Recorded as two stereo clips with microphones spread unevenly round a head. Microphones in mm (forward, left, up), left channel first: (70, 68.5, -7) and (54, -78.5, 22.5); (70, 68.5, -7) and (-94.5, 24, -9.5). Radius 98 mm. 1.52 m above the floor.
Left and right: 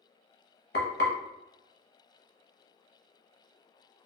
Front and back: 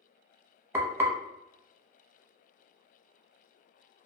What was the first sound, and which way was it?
Frying, 120° left.